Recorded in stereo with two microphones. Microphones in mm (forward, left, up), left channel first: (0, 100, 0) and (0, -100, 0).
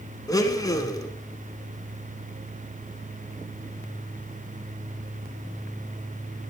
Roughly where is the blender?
Centre.